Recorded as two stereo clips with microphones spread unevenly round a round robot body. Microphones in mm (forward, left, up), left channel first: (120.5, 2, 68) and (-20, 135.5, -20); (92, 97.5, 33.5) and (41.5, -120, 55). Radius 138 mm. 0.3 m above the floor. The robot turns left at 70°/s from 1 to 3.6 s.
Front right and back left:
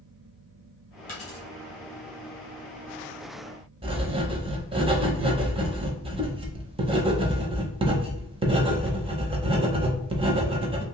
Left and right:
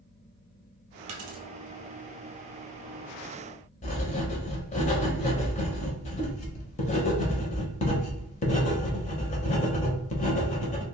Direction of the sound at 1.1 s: 90° right.